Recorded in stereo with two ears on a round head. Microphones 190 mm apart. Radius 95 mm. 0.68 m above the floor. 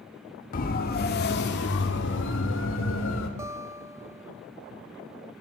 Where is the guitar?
15° right (ahead or behind), 1.1 m.